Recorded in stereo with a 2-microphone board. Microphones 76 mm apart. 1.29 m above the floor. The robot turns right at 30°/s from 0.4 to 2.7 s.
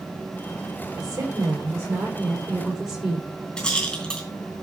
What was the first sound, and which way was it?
A woman speaking, 65° right.